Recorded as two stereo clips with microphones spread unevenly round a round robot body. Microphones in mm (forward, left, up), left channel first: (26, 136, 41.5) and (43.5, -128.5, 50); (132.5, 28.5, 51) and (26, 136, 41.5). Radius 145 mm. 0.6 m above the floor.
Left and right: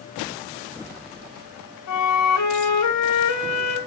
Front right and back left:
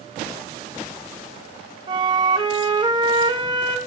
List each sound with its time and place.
1.9 s a flute: 75° left, 3.5 m